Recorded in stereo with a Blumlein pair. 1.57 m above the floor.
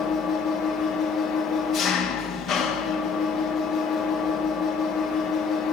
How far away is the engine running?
About 3.5 m.